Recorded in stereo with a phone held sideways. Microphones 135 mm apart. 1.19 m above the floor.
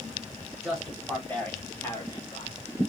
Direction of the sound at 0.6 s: 5° right (ahead or behind).